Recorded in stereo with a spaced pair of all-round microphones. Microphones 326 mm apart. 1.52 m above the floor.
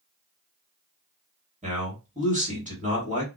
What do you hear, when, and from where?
1.6 s a man speaking: 20° right (ahead or behind), 1.6 m